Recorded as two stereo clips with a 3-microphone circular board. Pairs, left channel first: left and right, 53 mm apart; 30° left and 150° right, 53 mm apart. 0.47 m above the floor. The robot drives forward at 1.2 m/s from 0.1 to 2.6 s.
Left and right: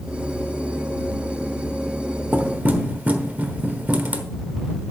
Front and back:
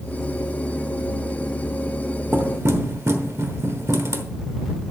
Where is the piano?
I don't hear a piano.